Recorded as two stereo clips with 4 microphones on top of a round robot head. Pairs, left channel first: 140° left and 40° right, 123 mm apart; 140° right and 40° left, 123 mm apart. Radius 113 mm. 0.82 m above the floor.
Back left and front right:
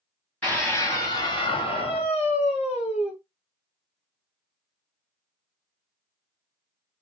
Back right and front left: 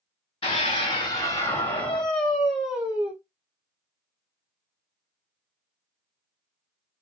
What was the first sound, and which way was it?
A scream, 145° right.